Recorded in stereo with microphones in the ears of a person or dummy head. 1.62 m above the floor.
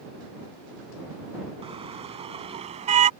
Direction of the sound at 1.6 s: 30° right (ahead or behind).